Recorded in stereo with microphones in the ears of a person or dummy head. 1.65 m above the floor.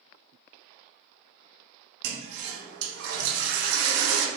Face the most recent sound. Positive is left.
turn(degrees=-75)  # may be behind; listen again after turning